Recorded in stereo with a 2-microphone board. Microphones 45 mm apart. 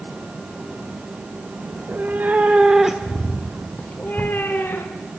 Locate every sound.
1.7 s a cat meowing: 55° right (ahead or behind), 2 m; by 5.1 s 55° left (ahead or behind), 2.5 m